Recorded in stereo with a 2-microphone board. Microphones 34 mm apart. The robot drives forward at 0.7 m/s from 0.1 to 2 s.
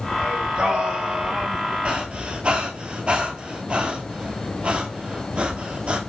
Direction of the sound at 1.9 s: 40° right (ahead or behind).